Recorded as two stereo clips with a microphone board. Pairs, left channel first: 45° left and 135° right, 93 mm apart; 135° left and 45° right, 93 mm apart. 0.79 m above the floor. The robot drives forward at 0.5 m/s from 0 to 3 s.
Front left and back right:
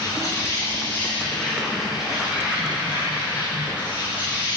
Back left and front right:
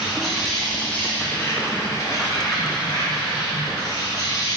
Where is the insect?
35° left, 1.0 m; by 4.6 s 160° left, 1.3 m.